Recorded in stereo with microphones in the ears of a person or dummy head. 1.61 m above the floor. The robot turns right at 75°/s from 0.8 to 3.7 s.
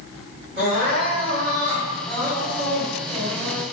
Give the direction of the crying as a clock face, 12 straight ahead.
5 o'clock.